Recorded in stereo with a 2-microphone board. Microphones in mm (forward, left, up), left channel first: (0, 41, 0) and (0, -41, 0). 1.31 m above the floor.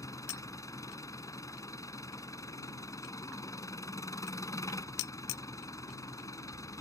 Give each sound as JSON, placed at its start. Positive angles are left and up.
{"t": 0.0, "sound": "an engine running", "side_deg": 45}